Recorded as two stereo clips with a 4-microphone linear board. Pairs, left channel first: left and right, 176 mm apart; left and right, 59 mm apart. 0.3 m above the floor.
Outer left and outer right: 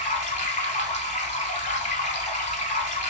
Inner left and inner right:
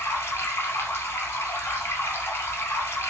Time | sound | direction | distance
0.0 | running water | 45° left (ahead or behind) | 0.9 m